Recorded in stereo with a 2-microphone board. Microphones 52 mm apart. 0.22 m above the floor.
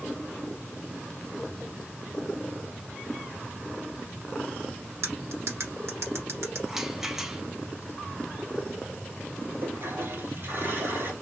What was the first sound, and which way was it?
Cutlery clinking, 65° right (ahead or behind).